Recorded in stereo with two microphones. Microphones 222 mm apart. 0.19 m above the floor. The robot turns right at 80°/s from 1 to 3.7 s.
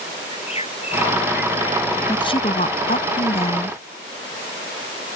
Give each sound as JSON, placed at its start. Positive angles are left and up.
{"t": 0.3, "sound": "a bird", "azimuth_deg": 150}
{"t": 2.1, "sound": "a woman speaking", "azimuth_deg": 20}